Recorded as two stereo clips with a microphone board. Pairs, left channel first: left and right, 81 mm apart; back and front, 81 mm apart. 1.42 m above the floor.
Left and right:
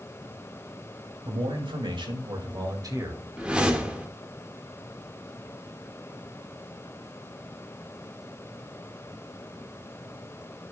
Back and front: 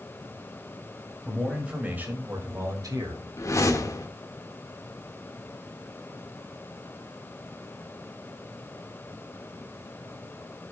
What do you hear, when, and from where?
1.2 s a man speaking: 85° right, 2.5 m; by 3.2 s 30° right, 2 m
3.4 s a whoosh: 160° right, 1.2 m